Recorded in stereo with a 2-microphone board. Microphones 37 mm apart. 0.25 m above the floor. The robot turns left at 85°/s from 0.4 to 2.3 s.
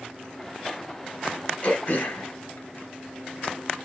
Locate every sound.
1.6 s throat clearing: 30° left (ahead or behind), 1.4 m; by 3.5 s 65° left (ahead or behind), 1.4 m